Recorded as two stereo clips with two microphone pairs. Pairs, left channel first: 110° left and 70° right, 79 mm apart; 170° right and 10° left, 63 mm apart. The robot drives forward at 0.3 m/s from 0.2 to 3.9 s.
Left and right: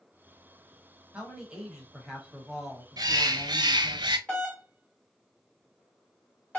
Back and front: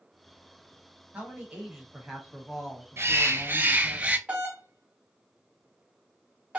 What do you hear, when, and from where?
1.1 s a man speaking: 10° right, 1.1 m; by 4.0 s 170° right, 1.1 m
3.0 s a bird: 35° right, 0.6 m; by 4.2 s 60° right, 0.5 m
4.3 s a doorbell: 65° left, 1.4 m